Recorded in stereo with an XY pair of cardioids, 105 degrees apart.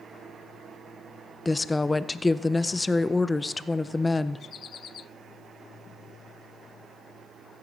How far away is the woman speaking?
About 0.5 m.